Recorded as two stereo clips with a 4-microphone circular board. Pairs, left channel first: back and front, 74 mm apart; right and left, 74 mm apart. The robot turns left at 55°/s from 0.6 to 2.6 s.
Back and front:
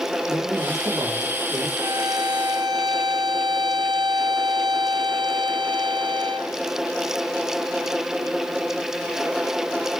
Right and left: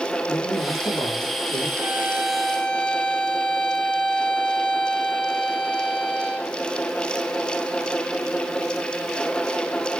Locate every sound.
0.3 s a man speaking: 35° right, 7 m; by 1.7 s 90° right, 7 m
1.8 s a violin: 30° left, 4.5 m; by 6.5 s 15° right, 4.5 m